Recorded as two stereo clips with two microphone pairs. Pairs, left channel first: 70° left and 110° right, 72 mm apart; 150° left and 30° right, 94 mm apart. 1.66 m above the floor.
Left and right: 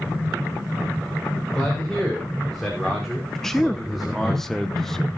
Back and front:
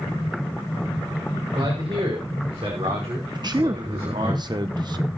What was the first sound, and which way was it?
A man speaking, 15° right.